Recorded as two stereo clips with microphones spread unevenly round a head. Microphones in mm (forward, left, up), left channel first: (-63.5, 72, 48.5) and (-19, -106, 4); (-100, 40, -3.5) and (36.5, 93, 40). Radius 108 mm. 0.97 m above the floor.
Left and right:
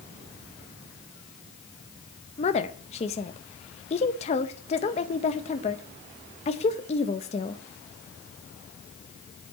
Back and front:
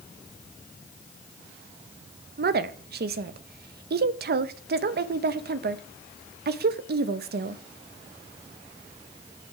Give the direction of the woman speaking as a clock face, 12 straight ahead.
11 o'clock.